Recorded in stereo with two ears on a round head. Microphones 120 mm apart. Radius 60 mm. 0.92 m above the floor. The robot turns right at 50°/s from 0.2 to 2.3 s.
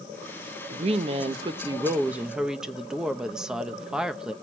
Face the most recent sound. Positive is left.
turn(degrees=-5)